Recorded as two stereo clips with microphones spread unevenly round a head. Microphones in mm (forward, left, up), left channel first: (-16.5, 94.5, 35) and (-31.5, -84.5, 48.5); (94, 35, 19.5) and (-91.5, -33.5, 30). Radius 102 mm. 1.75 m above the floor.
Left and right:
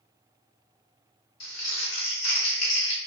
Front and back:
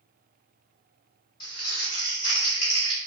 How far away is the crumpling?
About 1.7 m.